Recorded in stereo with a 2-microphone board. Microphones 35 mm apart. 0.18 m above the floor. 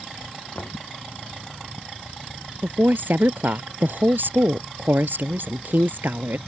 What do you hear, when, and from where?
0.6 s knocking: 70° left (ahead or behind)
2.6 s a woman speaking: 70° right (ahead or behind)